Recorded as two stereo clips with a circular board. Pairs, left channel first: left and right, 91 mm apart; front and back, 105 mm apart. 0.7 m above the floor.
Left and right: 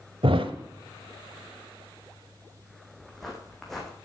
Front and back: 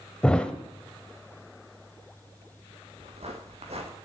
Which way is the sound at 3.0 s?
175° left.